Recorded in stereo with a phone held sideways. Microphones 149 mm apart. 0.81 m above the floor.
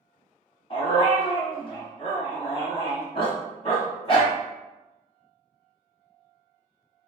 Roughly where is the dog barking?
Left.